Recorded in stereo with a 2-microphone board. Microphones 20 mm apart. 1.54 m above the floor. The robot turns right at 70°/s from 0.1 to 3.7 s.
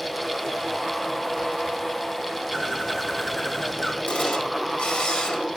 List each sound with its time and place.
2.5 s a bird: 55° right, 2 m; by 4.0 s 30° left, 2 m
4.1 s a camera shutter: 75° left (ahead or behind), 2 m